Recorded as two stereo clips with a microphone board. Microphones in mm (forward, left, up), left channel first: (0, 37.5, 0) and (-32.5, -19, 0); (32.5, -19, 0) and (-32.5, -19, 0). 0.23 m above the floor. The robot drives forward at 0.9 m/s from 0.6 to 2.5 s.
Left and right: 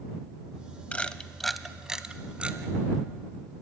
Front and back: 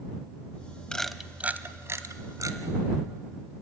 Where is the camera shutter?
55° left, 0.7 m; by 2.6 s 170° left, 1.5 m.